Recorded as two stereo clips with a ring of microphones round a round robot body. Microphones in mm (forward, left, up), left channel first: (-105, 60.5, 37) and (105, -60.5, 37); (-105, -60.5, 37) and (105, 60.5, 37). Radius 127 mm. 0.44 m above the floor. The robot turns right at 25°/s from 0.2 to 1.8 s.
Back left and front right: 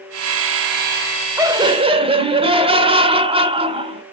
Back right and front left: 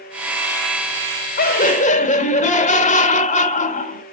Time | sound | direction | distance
1.4 | laughter | 105° right | 1.4 m